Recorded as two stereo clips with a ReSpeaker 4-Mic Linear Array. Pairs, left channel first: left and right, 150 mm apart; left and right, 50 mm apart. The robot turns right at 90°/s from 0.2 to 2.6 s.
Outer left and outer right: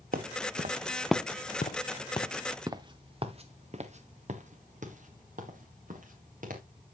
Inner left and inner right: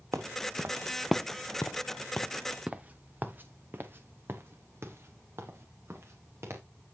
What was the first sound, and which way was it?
Footsteps, 70° right (ahead or behind).